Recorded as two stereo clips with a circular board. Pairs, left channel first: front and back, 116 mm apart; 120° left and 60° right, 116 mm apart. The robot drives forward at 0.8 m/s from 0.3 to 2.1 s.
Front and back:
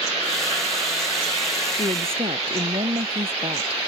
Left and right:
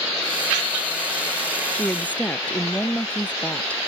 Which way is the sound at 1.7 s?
160° right.